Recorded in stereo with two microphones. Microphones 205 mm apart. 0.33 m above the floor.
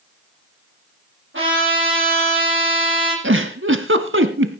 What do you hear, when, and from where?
1.3 s a trumpet: 75° right (ahead or behind), 8.5 m
3.2 s a giggle: 80° right, 1.1 m